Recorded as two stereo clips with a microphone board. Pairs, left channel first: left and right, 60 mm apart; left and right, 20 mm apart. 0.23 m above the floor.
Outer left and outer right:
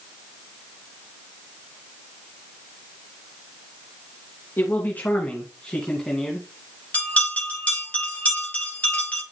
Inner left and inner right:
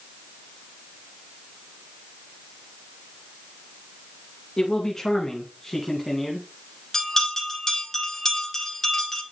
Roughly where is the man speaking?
Left.